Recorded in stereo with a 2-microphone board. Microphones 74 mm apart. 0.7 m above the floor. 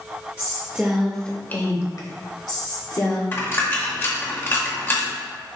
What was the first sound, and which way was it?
A woman speaking, 40° right (ahead or behind).